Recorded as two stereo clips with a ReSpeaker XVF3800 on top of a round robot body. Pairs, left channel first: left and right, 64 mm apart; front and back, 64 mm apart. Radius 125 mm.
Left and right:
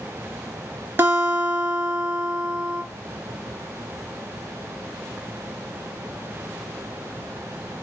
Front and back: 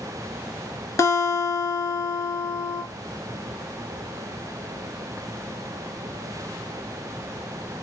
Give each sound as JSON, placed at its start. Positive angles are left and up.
{"t": 1.0, "sound": "a guitar", "azimuth_deg": -35, "distance_m": 3.0}